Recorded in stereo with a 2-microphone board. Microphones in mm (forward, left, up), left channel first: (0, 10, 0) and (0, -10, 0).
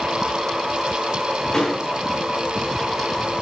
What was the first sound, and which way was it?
A door slam, 25° left (ahead or behind).